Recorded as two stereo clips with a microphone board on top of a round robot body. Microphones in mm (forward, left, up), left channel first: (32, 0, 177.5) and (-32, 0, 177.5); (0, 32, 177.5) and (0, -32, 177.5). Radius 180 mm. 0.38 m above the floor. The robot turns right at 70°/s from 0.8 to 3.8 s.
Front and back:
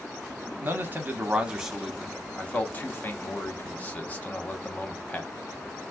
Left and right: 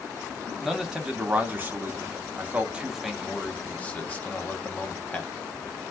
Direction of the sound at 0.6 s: 170° right.